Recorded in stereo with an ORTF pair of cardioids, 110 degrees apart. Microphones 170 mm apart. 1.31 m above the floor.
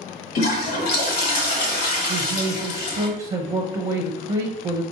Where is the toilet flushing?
70° left, 1.2 m.